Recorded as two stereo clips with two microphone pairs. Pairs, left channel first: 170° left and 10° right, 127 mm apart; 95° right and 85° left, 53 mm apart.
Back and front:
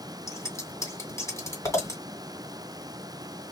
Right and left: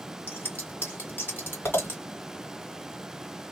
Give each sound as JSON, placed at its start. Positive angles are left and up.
{"t": 0.3, "sound": "scissors", "azimuth_deg": -130, "distance_m": 2.5}